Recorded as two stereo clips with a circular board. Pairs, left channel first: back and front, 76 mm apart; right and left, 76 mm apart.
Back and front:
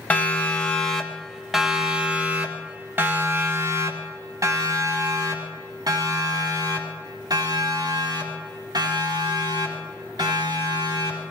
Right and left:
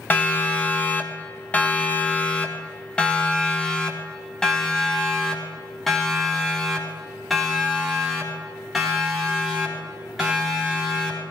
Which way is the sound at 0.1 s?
135° right.